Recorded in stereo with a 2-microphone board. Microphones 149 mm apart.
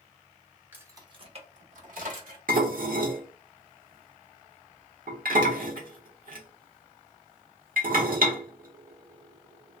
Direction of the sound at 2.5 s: 75° right (ahead or behind).